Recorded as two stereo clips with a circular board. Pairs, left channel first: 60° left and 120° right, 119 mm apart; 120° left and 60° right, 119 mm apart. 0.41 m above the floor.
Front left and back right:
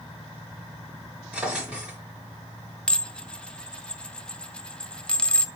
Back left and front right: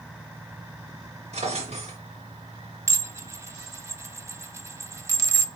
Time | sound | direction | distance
1.3 | a drawer | 40° right | 4 m
2.9 | dishes clattering | 15° right | 0.6 m